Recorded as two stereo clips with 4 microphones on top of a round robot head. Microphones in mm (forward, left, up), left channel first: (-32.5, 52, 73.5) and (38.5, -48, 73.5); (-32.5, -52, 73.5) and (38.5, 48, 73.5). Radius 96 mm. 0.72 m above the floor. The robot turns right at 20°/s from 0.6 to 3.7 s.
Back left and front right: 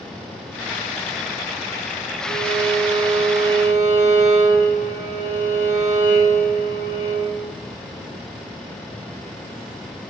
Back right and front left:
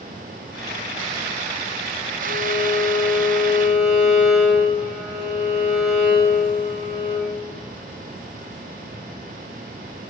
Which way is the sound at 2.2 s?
10° right.